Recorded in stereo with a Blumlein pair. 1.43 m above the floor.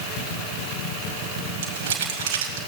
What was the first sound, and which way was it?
Crumpling, 55° right.